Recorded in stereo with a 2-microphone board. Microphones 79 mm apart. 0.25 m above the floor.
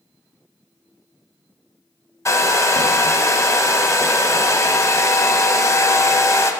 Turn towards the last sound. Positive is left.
turn(degrees=40)  # may be behind; listen again after turning